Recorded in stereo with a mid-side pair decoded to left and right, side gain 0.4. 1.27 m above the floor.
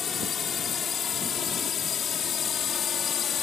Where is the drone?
55° left; by 3.4 s 60° left.